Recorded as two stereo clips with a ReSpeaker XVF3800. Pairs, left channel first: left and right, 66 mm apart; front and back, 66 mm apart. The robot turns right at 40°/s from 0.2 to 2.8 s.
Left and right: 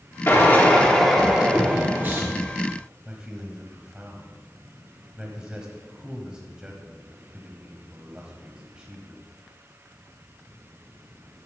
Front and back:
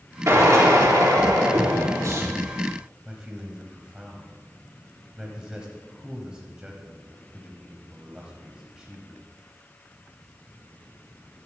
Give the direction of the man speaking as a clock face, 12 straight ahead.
4 o'clock.